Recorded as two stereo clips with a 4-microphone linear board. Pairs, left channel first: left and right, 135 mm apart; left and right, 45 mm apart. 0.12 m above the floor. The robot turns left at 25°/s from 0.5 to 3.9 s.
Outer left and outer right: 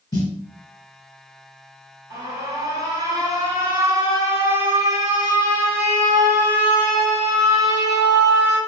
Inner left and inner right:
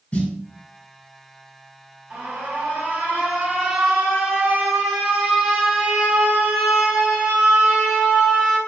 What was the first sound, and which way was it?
A snare drum, 30° left (ahead or behind).